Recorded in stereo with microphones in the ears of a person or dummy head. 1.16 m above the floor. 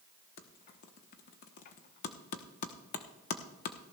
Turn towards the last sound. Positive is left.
turn(degrees=40)  # may be behind; listen again after turning